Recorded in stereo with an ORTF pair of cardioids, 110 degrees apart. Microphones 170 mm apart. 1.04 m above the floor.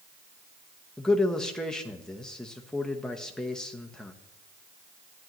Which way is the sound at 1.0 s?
5° left.